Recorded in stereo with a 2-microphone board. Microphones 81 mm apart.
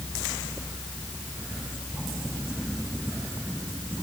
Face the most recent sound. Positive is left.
No sound to turn to.